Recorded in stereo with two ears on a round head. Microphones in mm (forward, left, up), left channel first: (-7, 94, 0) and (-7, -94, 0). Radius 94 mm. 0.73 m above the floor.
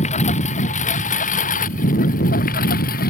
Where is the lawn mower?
35° left (ahead or behind); by 3.1 s 45° left (ahead or behind).